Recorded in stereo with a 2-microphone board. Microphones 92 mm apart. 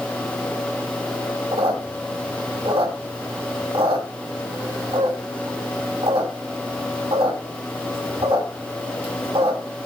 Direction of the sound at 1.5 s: 85° right.